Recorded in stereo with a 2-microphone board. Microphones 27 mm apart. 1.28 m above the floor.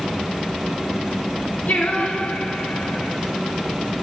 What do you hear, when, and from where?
1.7 s singing: 65° left (ahead or behind), 1.1 m